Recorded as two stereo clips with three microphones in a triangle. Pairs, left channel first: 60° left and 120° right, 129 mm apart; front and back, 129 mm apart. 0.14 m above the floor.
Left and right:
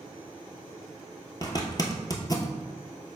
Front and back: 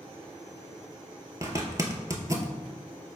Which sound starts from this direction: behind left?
A zipper, at 1.4 s.